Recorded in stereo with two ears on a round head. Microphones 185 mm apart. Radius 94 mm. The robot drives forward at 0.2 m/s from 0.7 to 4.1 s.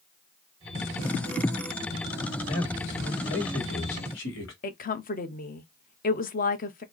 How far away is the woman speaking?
About 0.8 m.